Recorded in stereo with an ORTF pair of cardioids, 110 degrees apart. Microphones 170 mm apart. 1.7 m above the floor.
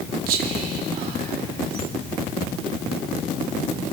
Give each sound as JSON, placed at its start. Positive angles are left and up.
{"t": 0.3, "sound": "whispering", "azimuth_deg": -60, "distance_m": 1.8}